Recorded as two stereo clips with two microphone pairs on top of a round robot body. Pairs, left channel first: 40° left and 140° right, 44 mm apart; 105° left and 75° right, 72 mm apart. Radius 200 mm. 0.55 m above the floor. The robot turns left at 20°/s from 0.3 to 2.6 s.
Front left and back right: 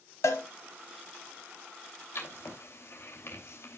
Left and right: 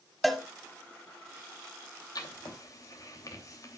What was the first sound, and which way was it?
A cowbell, 20° left.